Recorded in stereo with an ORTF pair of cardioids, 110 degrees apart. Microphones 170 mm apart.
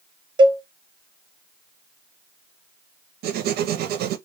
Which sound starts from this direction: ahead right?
A cowbell, at 0.4 s.